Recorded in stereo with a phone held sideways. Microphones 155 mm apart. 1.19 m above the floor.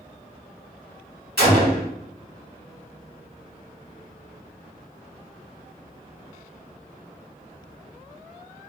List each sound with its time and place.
1.4 s a gunshot: 70° right (ahead or behind), 1.5 m